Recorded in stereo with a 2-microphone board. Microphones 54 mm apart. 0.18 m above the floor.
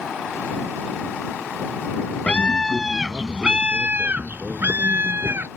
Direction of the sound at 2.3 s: 25° left (ahead or behind).